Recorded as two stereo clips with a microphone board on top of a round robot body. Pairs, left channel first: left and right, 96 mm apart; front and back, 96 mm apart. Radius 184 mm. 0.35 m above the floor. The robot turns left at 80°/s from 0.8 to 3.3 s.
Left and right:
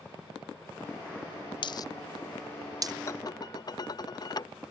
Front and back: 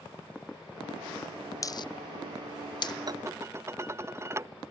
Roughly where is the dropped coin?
Ahead left.